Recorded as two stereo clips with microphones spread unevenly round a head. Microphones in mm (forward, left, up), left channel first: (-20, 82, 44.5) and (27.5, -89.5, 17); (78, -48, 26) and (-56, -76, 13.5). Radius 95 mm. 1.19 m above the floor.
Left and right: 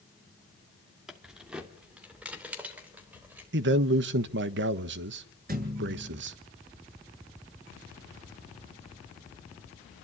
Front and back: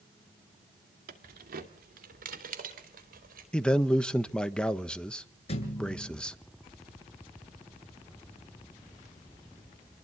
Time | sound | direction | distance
1.1 | keys jangling | 165° right | 2 m
3.5 | a man speaking | 75° right | 1.3 m
5.5 | a thud | 30° right | 7.5 m